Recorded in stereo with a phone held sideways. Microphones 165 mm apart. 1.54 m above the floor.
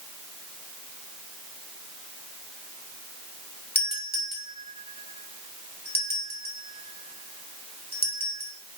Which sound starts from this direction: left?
A doorbell, at 3.8 s.